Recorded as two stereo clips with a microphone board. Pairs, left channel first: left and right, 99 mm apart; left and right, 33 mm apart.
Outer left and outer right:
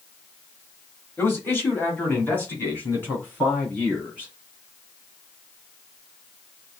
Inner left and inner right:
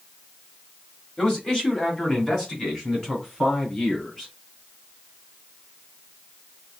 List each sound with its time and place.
1.2 s a man speaking: 25° left (ahead or behind), 1.3 m; by 4.3 s 15° left (ahead or behind), 2.5 m